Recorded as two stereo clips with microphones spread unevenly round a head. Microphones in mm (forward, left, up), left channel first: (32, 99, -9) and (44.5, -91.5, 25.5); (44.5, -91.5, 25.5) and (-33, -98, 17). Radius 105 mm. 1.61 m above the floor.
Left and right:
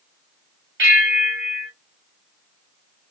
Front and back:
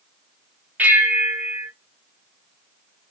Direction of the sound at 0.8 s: 105° right.